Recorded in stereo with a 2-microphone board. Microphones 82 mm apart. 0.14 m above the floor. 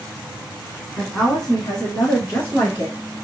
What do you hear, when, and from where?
1.0 s a woman speaking: centre (ahead or behind), 1.0 m; by 3.0 s 10° left (ahead or behind), 1.6 m